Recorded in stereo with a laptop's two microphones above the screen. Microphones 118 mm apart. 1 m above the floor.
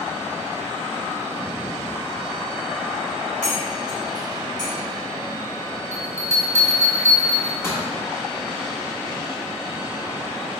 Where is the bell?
20° left (ahead or behind), 1.0 m.